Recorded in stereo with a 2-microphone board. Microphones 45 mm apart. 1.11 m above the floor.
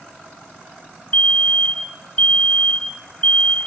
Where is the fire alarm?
35° left (ahead or behind), 1.3 m.